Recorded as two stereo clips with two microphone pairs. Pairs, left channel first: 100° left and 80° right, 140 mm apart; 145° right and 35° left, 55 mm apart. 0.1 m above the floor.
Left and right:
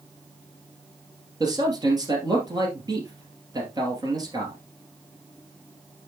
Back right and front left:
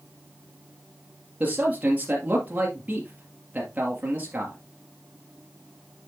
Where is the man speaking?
25° right, 2.5 m.